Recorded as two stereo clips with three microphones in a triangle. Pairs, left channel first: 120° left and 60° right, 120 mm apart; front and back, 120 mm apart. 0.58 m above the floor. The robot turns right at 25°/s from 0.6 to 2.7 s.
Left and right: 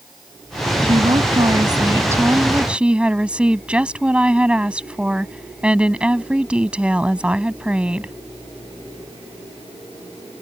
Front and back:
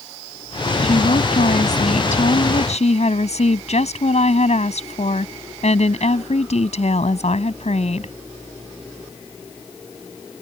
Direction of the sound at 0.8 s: 25° right.